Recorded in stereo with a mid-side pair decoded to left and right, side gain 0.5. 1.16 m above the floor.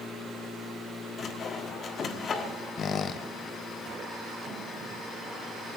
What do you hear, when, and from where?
1.2 s sawing: 50° left, 1.4 m
2.8 s a squeak: 50° left, 0.7 m